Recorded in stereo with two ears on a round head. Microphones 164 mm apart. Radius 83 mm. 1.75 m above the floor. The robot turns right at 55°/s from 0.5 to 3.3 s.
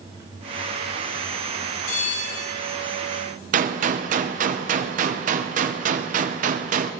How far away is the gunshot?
About 0.8 m.